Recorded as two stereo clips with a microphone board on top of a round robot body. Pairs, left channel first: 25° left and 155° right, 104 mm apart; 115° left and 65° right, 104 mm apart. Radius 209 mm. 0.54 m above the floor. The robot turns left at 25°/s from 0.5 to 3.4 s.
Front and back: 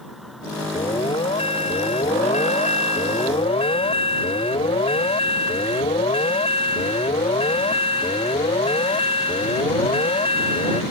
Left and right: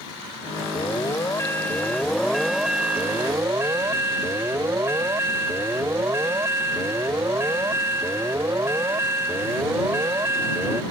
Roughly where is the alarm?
Ahead left.